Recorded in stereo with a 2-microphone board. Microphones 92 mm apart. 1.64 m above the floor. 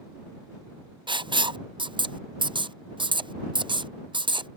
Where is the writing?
70° right (ahead or behind).